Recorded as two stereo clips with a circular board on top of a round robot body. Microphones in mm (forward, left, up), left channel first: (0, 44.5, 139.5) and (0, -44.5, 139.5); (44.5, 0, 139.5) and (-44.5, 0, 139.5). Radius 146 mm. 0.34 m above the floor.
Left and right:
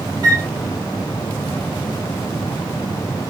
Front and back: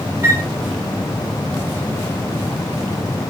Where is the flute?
125° right, 1.0 m.